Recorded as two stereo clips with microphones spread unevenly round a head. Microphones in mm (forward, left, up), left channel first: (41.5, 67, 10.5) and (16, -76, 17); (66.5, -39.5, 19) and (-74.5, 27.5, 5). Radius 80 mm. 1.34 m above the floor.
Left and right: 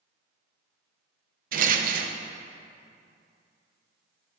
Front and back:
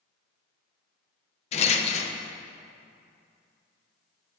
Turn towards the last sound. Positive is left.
turn(degrees=-75)